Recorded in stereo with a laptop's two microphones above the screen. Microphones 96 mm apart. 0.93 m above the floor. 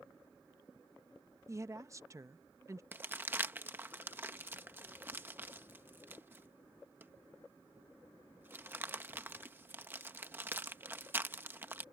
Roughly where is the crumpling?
Right.